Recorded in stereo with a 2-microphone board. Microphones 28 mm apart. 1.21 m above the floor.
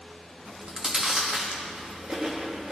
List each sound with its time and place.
0.5 s chewing: 25° right (ahead or behind), 1.3 m